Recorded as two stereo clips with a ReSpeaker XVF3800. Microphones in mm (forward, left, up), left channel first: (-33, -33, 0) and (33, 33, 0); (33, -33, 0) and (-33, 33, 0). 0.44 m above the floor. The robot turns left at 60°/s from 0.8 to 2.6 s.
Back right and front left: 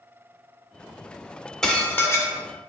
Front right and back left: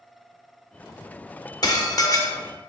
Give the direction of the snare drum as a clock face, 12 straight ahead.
I don't hear a snare drum.